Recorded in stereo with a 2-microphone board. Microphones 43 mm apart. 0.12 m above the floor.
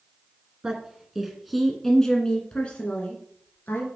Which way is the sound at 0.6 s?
15° right (ahead or behind).